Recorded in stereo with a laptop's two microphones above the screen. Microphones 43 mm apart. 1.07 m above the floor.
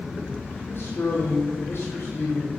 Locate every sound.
0.6 s a man speaking: 65° left (ahead or behind), 3 m